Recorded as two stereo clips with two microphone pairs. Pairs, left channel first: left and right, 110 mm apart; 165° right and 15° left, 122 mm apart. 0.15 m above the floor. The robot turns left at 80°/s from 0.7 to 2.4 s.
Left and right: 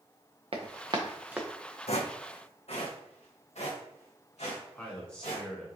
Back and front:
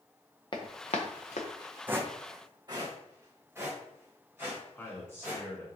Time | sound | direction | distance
0.5 | running footsteps | 115° right | 1.0 m
1.9 | footsteps | 90° left | 0.6 m
4.7 | a man speaking | 155° left | 1.3 m